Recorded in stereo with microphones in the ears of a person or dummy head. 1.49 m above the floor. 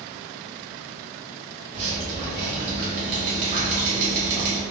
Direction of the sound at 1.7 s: 45° right (ahead or behind).